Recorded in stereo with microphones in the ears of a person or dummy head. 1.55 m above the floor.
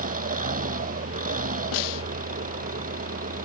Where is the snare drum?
75° left (ahead or behind).